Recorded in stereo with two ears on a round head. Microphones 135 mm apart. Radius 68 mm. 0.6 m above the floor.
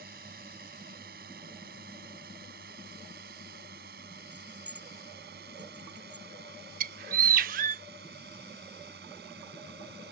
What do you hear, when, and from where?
0.0 s a drone: 65° right (ahead or behind); by 10.1 s 70° right (ahead or behind)
4.3 s keys jangling: 10° right (ahead or behind)
6.8 s a bird: 60° right (ahead or behind)